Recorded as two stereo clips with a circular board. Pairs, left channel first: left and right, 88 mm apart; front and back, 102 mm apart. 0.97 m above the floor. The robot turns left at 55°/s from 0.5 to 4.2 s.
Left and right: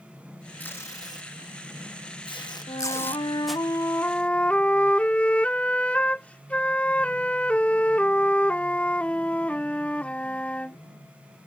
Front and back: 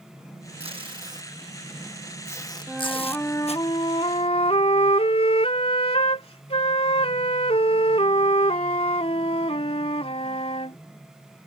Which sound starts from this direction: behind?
Tape being pulled, at 0.6 s.